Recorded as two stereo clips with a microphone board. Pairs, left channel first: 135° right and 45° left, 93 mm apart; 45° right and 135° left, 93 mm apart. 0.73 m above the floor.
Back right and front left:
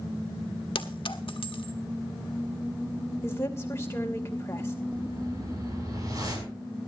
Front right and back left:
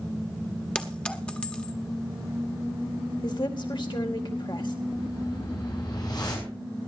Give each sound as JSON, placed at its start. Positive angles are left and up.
{"t": 0.8, "sound": "a clink", "azimuth_deg": -120, "distance_m": 1.3}
{"t": 3.2, "sound": "a woman speaking", "azimuth_deg": -75, "distance_m": 2.5}
{"t": 4.9, "sound": "a whoosh", "azimuth_deg": -5, "distance_m": 6.0}